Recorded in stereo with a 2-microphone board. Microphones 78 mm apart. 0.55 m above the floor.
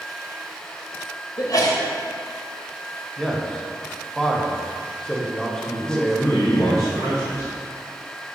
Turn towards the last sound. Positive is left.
turn(degrees=40)  # may be behind; listen again after turning